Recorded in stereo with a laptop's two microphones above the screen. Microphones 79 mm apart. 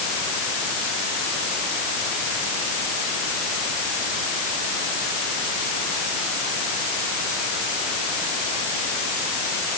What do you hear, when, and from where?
Only background noise.